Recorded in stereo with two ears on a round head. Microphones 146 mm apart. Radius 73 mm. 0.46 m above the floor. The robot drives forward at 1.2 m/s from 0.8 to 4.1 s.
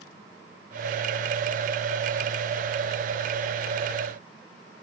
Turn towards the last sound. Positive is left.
No sound to turn to.